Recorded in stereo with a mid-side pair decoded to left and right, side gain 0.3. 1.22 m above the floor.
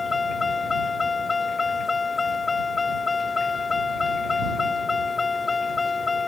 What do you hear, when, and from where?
0.0 s a vehicle: 50° left